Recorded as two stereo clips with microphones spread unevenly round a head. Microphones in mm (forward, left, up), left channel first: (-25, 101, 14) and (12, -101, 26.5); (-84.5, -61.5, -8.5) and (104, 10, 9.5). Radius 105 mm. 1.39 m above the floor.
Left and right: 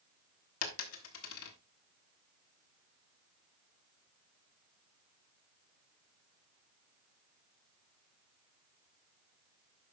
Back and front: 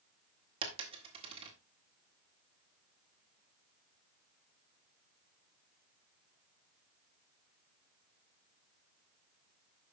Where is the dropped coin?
80° left, 1.6 m.